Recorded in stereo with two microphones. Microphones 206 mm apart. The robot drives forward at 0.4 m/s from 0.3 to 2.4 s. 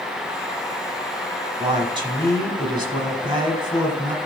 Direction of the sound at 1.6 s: 25° right (ahead or behind).